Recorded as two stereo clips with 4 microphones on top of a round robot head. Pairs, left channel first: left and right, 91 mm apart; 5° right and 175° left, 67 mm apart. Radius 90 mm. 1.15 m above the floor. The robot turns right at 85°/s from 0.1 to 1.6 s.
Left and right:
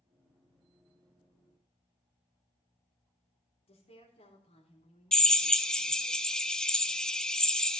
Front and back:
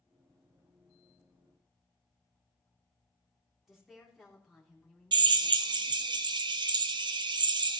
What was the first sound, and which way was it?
A woman speaking, 80° left.